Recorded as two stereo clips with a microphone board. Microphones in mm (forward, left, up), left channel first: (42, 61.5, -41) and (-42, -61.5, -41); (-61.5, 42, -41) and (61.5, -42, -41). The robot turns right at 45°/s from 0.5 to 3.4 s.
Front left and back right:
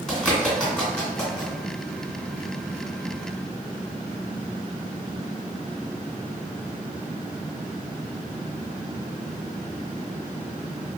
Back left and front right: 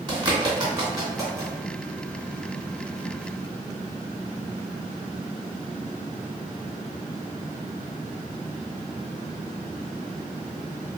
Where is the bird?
30° right, 1.7 m; by 1.5 s 15° left, 1.7 m.